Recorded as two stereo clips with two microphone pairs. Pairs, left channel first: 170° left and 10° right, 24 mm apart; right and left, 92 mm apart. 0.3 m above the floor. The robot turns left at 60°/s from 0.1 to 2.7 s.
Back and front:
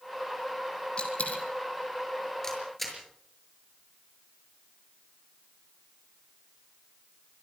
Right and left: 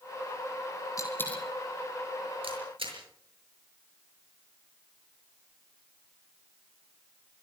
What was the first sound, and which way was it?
A dropped coin, 140° right.